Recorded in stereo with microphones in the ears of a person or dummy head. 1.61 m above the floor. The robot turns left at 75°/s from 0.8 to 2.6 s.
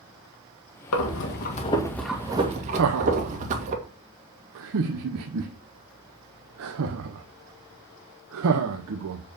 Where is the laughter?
80° right, 0.9 m.